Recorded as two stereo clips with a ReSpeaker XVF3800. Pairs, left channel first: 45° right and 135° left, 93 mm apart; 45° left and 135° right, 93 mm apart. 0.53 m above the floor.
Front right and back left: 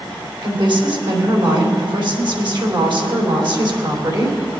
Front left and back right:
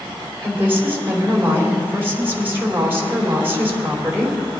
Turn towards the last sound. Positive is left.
turn(degrees=160)